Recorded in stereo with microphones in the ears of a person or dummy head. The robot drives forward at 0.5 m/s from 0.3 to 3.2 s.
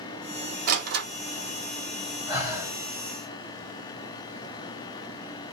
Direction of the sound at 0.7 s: 60° right (ahead or behind).